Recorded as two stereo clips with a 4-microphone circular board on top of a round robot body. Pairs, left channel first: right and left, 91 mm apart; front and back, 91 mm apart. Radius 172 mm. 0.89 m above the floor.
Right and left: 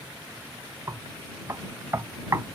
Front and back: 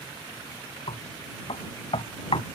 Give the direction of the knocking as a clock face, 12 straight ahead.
11 o'clock.